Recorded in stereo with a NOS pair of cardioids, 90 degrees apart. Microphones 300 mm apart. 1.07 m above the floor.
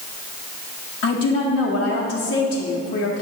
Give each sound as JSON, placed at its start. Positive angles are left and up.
{"t": 1.0, "sound": "a woman speaking", "azimuth_deg": 45, "distance_m": 1.1}